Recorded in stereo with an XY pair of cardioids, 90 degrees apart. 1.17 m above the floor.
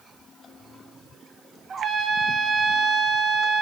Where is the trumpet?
50° right, 1.6 m.